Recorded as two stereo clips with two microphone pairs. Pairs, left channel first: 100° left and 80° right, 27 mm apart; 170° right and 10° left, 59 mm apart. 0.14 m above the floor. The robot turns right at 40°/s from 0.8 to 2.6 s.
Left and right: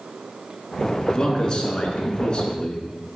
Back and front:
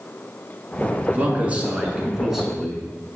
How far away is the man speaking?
About 1.5 m.